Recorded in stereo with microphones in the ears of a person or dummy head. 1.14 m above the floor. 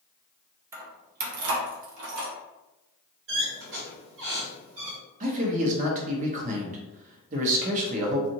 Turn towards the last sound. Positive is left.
turn(degrees=-40)  # may be behind; listen again after turning